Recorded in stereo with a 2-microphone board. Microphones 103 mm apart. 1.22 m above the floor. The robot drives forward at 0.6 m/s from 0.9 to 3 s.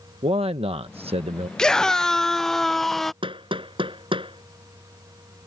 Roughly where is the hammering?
Right.